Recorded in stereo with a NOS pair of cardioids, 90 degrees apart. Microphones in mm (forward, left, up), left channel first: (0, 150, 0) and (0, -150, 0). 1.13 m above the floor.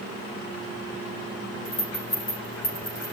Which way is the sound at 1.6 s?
50° left.